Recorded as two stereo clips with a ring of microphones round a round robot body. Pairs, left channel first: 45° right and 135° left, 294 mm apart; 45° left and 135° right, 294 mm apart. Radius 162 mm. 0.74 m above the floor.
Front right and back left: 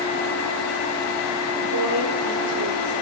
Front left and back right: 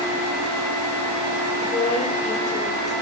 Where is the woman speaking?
110° left, 3 m.